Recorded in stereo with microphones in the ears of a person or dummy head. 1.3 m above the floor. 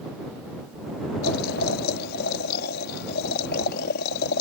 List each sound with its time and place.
1.2 s boiling: 65° left (ahead or behind)